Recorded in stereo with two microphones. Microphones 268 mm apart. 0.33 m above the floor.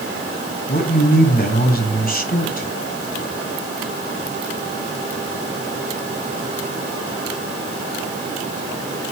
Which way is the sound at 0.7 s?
35° left (ahead or behind).